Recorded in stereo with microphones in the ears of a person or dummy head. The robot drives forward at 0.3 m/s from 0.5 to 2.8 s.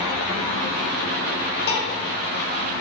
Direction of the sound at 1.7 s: 65° left (ahead or behind).